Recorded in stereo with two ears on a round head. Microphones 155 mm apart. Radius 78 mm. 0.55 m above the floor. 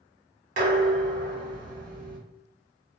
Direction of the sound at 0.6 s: 50° right (ahead or behind).